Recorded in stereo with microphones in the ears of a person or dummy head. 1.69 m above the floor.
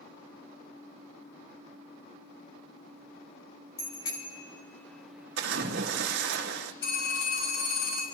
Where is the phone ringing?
80° left, 5.5 m.